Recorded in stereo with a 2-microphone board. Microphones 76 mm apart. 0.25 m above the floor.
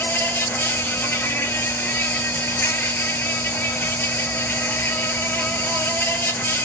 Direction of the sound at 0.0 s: 30° left (ahead or behind).